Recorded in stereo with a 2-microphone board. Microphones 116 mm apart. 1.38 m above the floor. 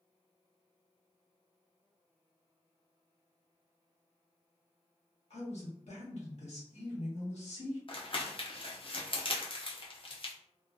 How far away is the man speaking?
About 1.2 m.